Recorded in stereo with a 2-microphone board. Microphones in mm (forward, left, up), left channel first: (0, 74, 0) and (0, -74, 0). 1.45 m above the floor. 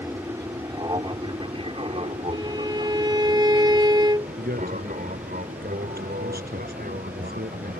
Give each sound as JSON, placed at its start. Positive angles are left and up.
{"t": 0.0, "sound": "an aircraft", "side_deg": -20}
{"t": 2.3, "sound": "a violin", "side_deg": -25}
{"t": 4.4, "sound": "a man speaking", "side_deg": -80}